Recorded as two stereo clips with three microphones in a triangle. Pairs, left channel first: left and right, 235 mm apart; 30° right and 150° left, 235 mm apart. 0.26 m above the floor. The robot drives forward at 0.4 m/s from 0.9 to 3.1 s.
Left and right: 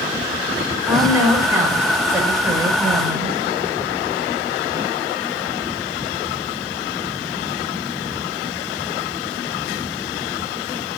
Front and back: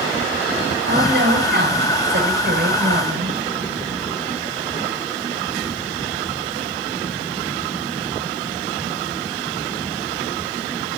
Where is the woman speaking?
170° right, 5.5 m.